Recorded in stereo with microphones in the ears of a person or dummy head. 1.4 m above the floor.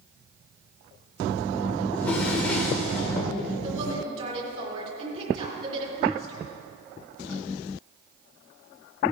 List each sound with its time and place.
1.9 s a drawer: 10° left (ahead or behind), 2 m
3.6 s a woman speaking: 40° right (ahead or behind), 3.5 m